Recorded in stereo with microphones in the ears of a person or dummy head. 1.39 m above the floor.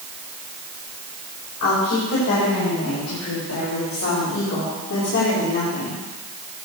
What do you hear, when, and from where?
1.6 s a woman speaking: 65° left (ahead or behind), 6 m; by 6.0 s 50° left (ahead or behind), 3 m